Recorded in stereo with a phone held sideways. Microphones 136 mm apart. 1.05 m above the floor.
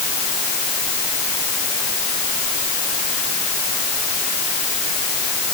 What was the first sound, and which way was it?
Only background noise.